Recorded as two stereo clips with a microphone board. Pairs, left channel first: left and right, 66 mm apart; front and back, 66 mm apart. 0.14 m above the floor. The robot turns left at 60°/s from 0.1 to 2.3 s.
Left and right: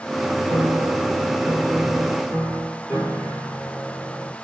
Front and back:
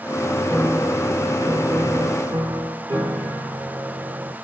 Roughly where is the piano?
Right.